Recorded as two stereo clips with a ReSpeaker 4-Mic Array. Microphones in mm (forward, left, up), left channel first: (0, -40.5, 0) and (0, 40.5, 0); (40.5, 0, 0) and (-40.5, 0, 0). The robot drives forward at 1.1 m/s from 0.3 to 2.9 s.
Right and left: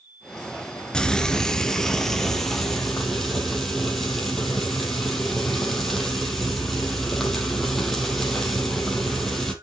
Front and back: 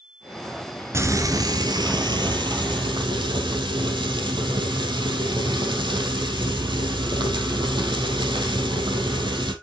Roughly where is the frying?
Behind.